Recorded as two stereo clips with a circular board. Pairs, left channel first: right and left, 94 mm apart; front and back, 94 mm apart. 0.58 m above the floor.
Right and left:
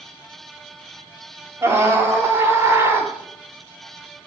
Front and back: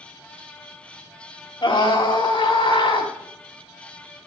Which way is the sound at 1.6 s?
40° left.